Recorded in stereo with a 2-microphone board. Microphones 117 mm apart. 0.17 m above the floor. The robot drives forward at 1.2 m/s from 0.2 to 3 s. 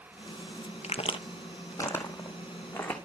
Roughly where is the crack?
Left.